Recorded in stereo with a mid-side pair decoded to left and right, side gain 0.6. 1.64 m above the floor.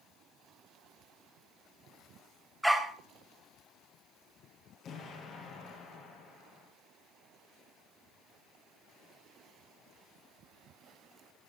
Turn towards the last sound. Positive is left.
turn(degrees=45)